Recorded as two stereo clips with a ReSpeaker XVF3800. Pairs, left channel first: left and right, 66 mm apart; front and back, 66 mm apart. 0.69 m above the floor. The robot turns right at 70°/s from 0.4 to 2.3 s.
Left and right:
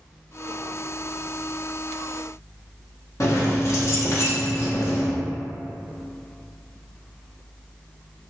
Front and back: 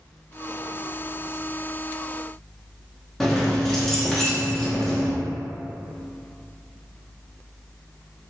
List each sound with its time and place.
3.2 s keys jangling: 80° left, 0.6 m